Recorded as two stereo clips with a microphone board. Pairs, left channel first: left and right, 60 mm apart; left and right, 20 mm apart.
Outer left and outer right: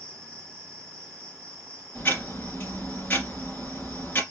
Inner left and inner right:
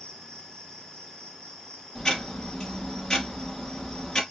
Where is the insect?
35° left (ahead or behind), 1.8 m.